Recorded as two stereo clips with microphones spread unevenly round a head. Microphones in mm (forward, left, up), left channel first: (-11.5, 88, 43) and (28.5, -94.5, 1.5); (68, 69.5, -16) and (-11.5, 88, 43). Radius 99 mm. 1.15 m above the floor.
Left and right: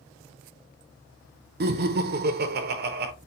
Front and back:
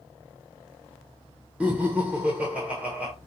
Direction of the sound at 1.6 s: 95° right.